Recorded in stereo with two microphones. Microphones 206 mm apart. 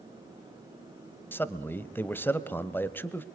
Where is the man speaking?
10° left (ahead or behind), 1.0 m.